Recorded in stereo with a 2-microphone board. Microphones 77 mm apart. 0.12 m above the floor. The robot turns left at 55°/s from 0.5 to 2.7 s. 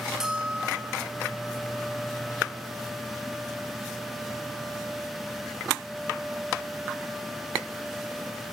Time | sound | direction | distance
0.2 | a bell | 5° right (ahead or behind) | 1.2 m